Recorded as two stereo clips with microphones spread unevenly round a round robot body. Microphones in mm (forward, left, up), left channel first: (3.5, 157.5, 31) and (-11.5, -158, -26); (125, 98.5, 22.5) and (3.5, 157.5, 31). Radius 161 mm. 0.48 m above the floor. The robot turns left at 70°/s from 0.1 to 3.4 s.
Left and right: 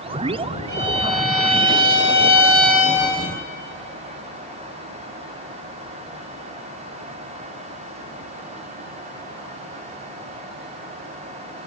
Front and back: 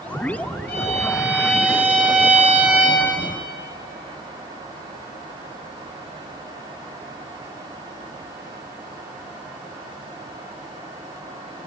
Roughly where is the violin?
Ahead right.